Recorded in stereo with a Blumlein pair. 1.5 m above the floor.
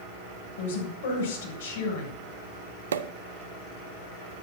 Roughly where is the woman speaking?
Ahead left.